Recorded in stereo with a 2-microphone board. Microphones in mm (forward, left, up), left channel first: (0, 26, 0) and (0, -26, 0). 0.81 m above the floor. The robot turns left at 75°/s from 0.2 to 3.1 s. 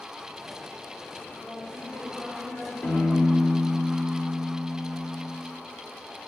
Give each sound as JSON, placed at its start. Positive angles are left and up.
{"t": 1.4, "sound": "a woman speaking", "azimuth_deg": 155, "distance_m": 2.0}
{"t": 2.8, "sound": "a piano", "side_deg": 45, "distance_m": 1.5}